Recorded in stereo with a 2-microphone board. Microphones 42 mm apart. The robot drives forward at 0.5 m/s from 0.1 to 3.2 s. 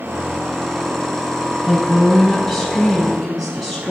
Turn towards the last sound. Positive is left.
turn(degrees=0)  # may be behind; listen again after turning